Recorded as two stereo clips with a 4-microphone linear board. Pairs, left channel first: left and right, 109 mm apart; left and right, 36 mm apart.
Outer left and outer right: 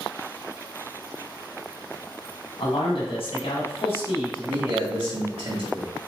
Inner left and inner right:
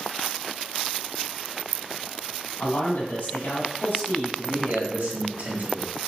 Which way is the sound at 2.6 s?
55° left (ahead or behind).